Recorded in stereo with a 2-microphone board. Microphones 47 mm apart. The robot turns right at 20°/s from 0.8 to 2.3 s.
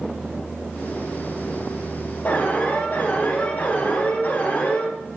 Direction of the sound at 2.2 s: 45° left (ahead or behind).